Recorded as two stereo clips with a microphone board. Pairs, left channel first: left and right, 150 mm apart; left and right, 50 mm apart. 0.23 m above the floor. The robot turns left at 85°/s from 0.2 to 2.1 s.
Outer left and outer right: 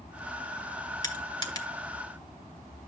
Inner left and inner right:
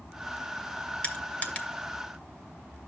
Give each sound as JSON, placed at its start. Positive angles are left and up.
{"t": 1.0, "sound": "crushing", "side_deg": 25, "distance_m": 1.3}